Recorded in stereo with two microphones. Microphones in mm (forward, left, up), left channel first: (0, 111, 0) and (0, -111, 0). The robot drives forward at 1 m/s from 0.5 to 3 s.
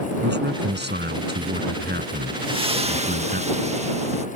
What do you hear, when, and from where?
0.2 s a man speaking: 50° right (ahead or behind); by 3.4 s 45° right (ahead or behind)
2.4 s a splash: 20° right (ahead or behind); by 4.3 s 30° right (ahead or behind)